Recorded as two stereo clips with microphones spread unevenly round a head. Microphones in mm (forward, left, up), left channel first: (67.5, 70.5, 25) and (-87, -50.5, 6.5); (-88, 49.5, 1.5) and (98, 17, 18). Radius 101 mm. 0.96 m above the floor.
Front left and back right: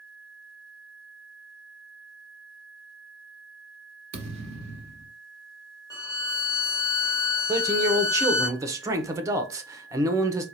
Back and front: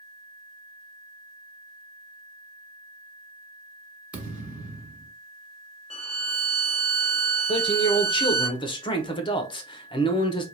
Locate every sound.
4.1 s a thud: 85° right, 1.1 m
5.9 s a violin: 110° left, 1.0 m
7.5 s a man speaking: 175° left, 0.8 m